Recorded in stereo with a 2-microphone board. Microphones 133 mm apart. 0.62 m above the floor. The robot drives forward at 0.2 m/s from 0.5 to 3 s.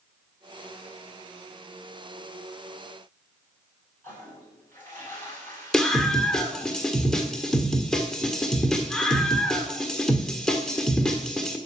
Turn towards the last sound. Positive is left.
turn(degrees=5)  # may be behind; listen again after turning